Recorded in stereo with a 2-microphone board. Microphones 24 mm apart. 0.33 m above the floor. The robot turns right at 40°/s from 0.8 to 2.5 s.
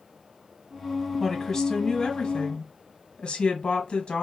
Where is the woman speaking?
10° left, 1.8 m; by 4.2 s 65° left, 1.8 m.